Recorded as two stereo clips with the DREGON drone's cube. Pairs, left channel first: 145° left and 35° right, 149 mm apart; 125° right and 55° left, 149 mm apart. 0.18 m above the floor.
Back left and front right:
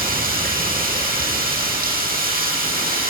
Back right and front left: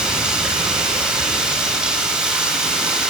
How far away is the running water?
About 5.5 m.